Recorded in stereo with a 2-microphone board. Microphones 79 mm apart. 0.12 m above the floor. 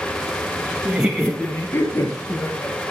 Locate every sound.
0.8 s laughter: 15° right (ahead or behind), 1.3 m; by 2.8 s 50° left (ahead or behind), 3 m